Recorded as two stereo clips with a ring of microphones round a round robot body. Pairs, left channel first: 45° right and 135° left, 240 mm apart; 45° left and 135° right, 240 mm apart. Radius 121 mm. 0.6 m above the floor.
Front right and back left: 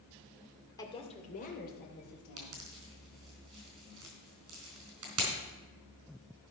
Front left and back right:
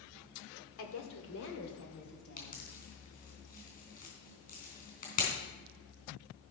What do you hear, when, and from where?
0.8 s a woman speaking: 30° left, 1.8 m; by 2.7 s 5° right, 4 m
2.4 s a pop: 105° left, 3.5 m